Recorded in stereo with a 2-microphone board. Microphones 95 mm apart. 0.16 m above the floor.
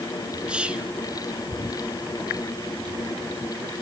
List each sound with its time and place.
0.5 s whispering: 10° right (ahead or behind), 2.5 m